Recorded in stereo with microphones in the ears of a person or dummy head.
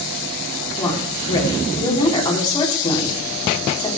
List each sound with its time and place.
0.8 s a woman speaking: 20° left (ahead or behind), 4.5 m